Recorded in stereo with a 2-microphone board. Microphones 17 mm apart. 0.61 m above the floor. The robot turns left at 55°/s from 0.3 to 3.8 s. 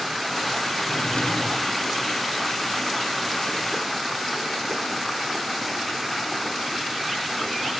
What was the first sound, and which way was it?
A drawer, 100° left.